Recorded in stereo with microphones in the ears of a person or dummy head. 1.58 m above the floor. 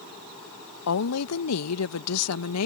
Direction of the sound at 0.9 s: 80° left.